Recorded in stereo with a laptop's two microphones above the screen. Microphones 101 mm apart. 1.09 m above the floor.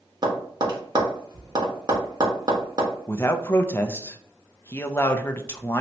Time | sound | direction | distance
0.2 | tapping | 45° right (ahead or behind) | 1.1 m
3.1 | a man speaking | 25° left (ahead or behind) | 0.5 m